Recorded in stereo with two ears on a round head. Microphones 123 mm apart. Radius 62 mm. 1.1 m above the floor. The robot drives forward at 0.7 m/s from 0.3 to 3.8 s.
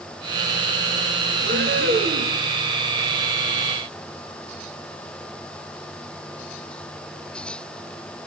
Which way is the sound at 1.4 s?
70° right (ahead or behind).